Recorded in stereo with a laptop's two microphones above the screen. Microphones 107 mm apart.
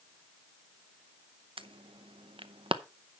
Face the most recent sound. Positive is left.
turn(degrees=-55)  # may be behind; listen again after turning